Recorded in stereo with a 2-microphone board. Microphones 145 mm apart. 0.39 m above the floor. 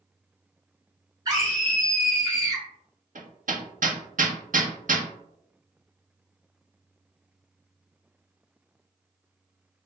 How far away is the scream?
About 1.3 m.